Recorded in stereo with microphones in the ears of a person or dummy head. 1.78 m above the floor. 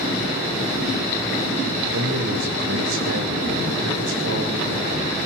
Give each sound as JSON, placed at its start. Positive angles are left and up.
{"t": 1.9, "sound": "a man speaking", "side_deg": -80, "distance_m": 8.0}